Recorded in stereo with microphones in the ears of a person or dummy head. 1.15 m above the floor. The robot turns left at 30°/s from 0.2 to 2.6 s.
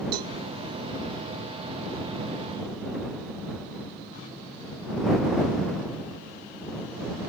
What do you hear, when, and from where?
0.1 s a cowbell: 60° right (ahead or behind)